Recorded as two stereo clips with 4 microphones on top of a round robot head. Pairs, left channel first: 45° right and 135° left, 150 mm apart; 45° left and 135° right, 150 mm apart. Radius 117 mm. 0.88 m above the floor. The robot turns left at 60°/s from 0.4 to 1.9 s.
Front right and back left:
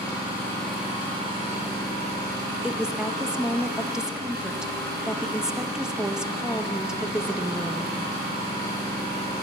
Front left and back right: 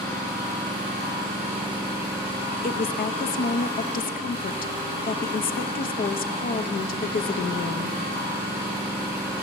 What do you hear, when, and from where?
0.0 s an engine running: 115° right, 6.5 m; by 9.4 s 155° left, 6.5 m
2.6 s a woman speaking: 50° left, 0.7 m